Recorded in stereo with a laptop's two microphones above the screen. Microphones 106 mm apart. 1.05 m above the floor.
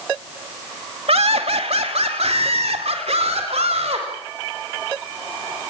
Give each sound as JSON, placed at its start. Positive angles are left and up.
{"t": 1.1, "sound": "laughter", "side_deg": -70, "distance_m": 2.5}